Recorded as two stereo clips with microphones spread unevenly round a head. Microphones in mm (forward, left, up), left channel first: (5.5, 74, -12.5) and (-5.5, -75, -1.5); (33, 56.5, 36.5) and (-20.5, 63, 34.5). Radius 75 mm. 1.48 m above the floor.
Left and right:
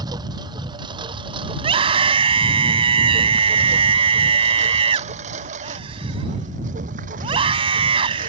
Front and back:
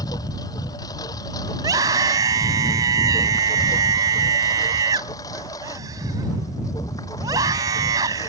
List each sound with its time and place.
0.0 s a lawn mower: 30° right; by 8.3 s 60° right
1.6 s a scream: 150° right